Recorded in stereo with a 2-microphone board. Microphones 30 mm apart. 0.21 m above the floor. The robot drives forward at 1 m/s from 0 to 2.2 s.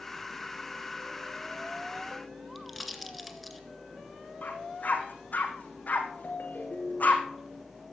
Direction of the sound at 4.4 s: 60° left (ahead or behind).